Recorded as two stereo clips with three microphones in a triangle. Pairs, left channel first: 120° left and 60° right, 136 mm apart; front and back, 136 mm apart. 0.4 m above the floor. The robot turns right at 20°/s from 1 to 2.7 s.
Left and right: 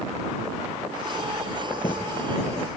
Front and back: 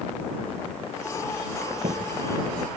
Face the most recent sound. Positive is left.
turn(degrees=180)